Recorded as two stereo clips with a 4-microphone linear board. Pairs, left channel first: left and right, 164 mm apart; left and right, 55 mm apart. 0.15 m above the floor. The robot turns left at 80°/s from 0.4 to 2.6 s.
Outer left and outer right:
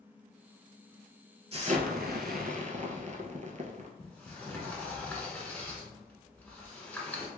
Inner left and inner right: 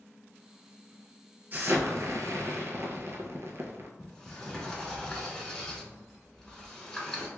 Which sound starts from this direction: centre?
A sliding door, at 4.0 s.